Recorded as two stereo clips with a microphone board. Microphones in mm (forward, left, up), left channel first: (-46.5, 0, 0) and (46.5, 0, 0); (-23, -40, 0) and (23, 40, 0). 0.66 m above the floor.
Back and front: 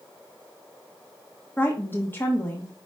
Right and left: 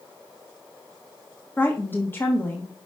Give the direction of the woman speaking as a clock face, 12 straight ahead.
5 o'clock.